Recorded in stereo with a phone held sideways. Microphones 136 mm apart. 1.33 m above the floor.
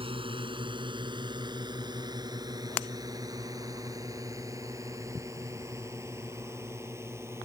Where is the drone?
40° right (ahead or behind); by 7.5 s 20° right (ahead or behind).